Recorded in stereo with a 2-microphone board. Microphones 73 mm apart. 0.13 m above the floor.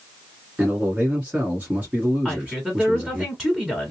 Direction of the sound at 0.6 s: 20° right (ahead or behind).